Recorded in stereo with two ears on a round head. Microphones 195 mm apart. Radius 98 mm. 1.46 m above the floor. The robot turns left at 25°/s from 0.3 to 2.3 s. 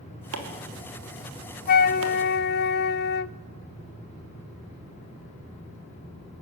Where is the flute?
40° left (ahead or behind), 0.6 m; by 3.3 s 50° left (ahead or behind), 0.6 m.